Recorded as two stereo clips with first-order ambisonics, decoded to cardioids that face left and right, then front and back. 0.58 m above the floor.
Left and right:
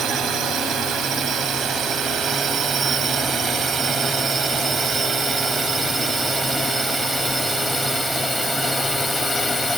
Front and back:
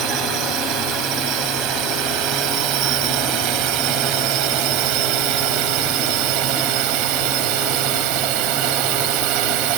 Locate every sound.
0.0 s a drone: 145° right; by 9.8 s straight behind